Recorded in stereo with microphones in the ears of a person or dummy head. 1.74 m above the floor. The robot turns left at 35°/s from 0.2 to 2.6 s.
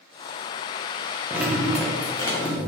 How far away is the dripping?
About 0.6 m.